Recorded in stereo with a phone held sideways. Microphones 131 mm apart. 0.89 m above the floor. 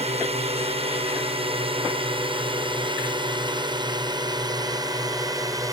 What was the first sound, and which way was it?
A drone, 50° right (ahead or behind).